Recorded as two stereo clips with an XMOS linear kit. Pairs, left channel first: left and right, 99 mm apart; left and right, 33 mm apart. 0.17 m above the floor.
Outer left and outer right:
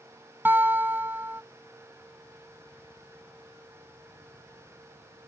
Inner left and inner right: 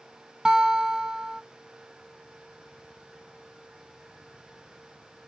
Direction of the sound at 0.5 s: 20° right (ahead or behind).